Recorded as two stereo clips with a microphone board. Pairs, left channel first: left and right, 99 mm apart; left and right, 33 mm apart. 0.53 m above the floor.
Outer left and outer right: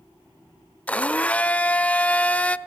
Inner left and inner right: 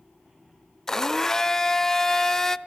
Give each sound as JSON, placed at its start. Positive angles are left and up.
{"t": 0.9, "sound": "a blender", "side_deg": 15, "distance_m": 0.8}